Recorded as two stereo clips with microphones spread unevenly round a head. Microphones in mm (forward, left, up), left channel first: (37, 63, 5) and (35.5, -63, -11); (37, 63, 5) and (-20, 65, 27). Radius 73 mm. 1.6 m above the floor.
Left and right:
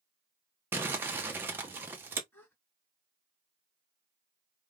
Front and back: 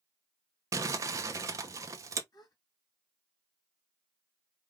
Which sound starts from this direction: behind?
Crumpling, at 0.7 s.